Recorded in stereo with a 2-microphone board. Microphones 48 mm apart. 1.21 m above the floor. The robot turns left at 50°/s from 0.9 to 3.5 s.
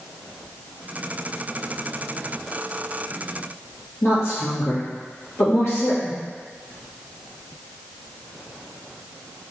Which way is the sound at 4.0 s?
65° left (ahead or behind).